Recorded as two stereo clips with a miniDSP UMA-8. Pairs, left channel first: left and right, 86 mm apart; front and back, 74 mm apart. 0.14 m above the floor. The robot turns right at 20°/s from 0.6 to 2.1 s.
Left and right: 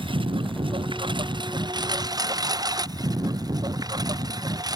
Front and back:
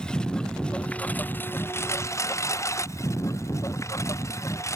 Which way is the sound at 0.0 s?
80° right.